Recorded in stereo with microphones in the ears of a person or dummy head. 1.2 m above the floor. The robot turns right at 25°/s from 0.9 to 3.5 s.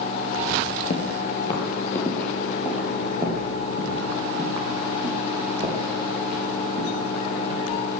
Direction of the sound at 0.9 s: 35° left (ahead or behind).